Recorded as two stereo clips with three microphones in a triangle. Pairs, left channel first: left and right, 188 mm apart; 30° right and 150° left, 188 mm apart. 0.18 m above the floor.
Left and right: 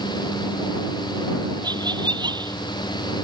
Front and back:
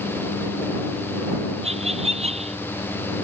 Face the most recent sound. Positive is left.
turn(degrees=-155)